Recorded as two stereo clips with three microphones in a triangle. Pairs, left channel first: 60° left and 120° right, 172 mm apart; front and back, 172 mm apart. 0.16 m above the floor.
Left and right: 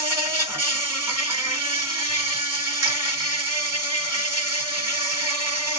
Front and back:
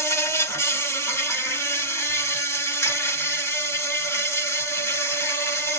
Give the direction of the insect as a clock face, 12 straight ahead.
2 o'clock.